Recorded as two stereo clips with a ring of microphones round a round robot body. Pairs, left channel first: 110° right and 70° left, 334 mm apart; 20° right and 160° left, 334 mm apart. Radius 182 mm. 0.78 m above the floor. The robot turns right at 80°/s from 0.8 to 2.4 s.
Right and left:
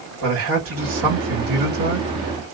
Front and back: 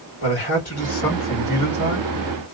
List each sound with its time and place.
0.2 s a man speaking: 25° left, 1.7 m; by 2.1 s 130° left, 1.7 m